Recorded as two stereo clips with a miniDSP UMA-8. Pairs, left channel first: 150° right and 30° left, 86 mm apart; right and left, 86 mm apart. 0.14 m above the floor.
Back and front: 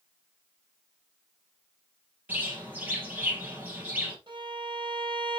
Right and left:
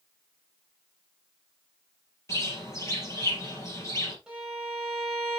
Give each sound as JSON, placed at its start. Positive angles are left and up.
{"t": 2.3, "sound": "a bird", "azimuth_deg": -40, "distance_m": 3.5}
{"t": 4.3, "sound": "a violin", "azimuth_deg": 10, "distance_m": 4.5}